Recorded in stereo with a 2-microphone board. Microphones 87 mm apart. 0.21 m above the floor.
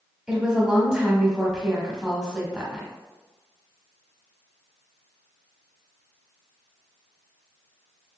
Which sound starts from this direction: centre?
A woman speaking, at 0.3 s.